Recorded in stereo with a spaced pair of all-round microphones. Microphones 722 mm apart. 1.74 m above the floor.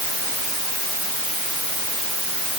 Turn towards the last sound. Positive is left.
No sound to turn to.